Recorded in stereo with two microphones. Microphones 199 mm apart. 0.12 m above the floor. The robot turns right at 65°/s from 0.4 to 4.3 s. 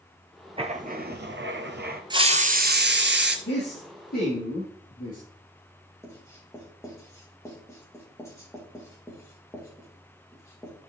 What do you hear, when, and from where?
0.6 s writing: 150° right, 1.0 m; by 2.0 s 55° right, 1.0 m
2.1 s a hiss: 155° right, 0.8 m; by 3.4 s 75° right, 0.8 m
3.5 s a man speaking: 75° left, 3.5 m; by 5.2 s 130° left, 3.5 m
6.0 s writing: 15° left (ahead or behind), 4 m